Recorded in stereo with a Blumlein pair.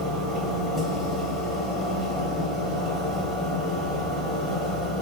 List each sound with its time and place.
0.0 s a machine running: 10° right, 0.8 m